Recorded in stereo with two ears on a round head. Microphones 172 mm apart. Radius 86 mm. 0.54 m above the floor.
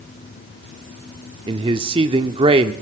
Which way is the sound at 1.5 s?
30° right (ahead or behind).